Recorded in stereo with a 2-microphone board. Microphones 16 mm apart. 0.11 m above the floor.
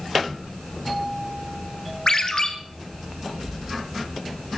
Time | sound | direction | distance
2.1 | a ringtone | 45° left (ahead or behind) | 1.8 m